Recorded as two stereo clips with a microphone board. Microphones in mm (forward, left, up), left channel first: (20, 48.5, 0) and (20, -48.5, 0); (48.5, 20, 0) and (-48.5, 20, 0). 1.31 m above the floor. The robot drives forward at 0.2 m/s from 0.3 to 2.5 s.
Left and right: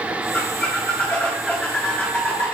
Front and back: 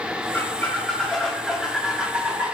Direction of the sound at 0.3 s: 40° left.